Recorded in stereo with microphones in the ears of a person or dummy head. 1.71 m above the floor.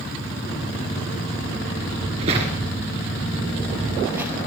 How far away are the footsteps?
About 1.8 m.